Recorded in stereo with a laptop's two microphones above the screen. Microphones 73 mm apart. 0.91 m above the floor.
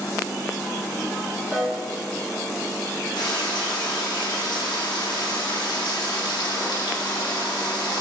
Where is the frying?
80° left, 1.2 m.